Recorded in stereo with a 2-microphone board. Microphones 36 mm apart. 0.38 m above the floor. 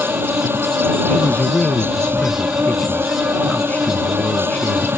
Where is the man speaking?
40° left (ahead or behind).